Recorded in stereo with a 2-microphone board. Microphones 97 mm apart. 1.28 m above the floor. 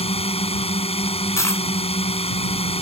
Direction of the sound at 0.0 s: 85° left.